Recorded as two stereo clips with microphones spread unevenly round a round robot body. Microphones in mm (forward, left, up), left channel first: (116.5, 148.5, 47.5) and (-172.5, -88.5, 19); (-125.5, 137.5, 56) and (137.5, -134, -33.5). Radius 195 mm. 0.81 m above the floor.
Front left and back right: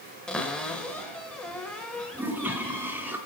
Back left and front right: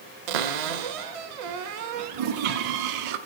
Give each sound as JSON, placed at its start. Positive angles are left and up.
{"t": 0.3, "sound": "a cupboard door", "azimuth_deg": -45, "distance_m": 1.1}
{"t": 2.1, "sound": "a toilet flushing", "azimuth_deg": -55, "distance_m": 1.0}